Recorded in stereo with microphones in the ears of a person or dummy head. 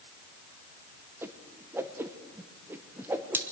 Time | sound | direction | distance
1.2 | a whoosh | 15° right (ahead or behind) | 0.9 m